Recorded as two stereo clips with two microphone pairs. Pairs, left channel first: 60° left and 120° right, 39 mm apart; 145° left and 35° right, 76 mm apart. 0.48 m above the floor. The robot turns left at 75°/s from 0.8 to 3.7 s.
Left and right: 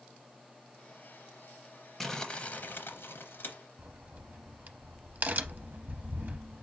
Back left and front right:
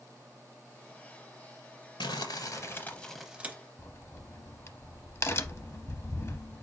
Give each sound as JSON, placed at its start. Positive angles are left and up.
{"t": 2.0, "sound": "crumpling", "azimuth_deg": 145, "distance_m": 0.7}
{"t": 3.8, "sound": "a crack", "azimuth_deg": -160, "distance_m": 0.6}